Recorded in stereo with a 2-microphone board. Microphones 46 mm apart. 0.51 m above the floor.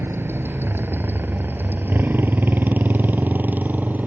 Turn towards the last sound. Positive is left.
turn(degrees=-45)  # may be behind; listen again after turning